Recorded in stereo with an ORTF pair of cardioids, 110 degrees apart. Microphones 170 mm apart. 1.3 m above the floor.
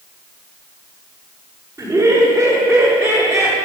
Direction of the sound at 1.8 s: 15° right.